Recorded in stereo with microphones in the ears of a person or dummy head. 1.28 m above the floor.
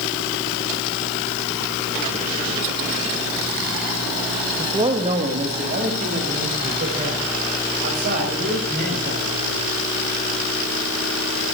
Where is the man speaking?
20° right (ahead or behind), 1.6 m; by 9.6 s 50° right (ahead or behind), 9 m.